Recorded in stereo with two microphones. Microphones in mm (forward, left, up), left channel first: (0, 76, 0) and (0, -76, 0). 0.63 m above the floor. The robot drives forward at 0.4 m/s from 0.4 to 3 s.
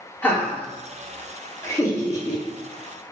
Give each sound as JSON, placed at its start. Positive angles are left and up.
{"t": 0.2, "sound": "laughter", "side_deg": 15, "distance_m": 1.2}